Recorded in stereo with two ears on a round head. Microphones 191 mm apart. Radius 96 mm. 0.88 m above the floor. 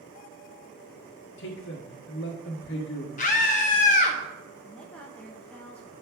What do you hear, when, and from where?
1.4 s a man speaking: 60° left (ahead or behind), 1.2 m
3.2 s a scream: 35° left (ahead or behind), 0.8 m
4.6 s a woman speaking: 5° left (ahead or behind), 0.8 m